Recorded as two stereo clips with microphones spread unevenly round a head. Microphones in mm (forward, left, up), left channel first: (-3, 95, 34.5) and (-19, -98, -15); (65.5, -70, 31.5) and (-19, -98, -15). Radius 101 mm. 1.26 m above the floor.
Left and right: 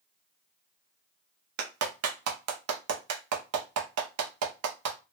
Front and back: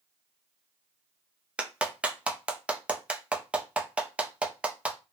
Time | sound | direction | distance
1.6 | a clap | 85° right | 0.6 m